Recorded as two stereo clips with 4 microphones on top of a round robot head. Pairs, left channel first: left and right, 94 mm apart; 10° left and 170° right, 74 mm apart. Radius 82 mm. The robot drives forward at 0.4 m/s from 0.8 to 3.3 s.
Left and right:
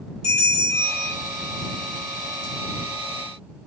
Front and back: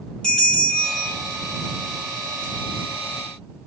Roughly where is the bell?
Left.